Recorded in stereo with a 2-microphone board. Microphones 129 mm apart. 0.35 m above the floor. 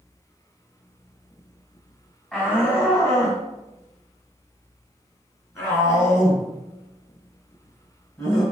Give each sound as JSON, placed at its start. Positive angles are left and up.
{"t": 2.3, "sound": "a shout", "side_deg": 10, "distance_m": 2.5}